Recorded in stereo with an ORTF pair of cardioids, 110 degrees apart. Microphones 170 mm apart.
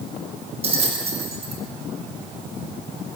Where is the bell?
35° right, 5.5 m.